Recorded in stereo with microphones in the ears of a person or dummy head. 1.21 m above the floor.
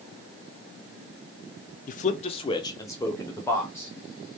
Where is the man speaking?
35° left (ahead or behind), 0.5 m; by 3.9 s 15° left (ahead or behind), 1.6 m.